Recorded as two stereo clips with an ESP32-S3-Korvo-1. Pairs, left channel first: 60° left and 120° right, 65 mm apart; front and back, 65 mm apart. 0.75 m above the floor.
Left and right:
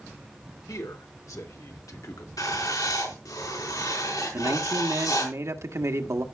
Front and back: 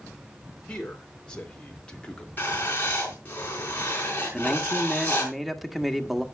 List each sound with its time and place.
0.7 s a man speaking: 75° left, 3 m; by 2.3 s 70° left, 1.6 m
2.4 s writing: 60° left, 4.5 m
4.3 s a man speaking: 95° right, 1.4 m